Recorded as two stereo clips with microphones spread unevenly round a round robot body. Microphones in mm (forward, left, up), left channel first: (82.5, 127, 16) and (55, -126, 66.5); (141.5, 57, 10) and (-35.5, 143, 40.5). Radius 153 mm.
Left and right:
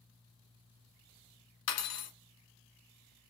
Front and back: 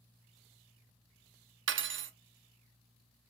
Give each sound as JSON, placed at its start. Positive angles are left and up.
{"t": 1.7, "sound": "cutlery clinking", "azimuth_deg": 125, "distance_m": 0.5}